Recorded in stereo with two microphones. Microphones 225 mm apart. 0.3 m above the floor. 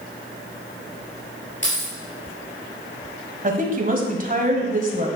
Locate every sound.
1.6 s keys jangling: 55° left (ahead or behind), 4 m
3.4 s a woman speaking: 35° right (ahead or behind), 1.5 m